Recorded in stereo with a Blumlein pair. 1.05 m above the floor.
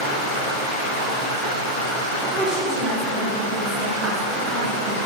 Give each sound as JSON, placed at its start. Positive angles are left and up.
{"t": 0.0, "sound": "running water", "azimuth_deg": 30, "distance_m": 1.5}
{"t": 2.3, "sound": "a woman speaking", "azimuth_deg": -10, "distance_m": 1.0}